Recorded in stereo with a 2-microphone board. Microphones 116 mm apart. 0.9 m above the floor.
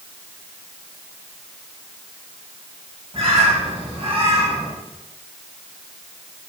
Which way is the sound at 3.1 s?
50° right (ahead or behind).